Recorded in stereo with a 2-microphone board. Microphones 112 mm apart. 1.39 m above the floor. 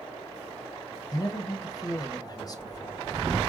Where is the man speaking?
35° left (ahead or behind), 0.8 m.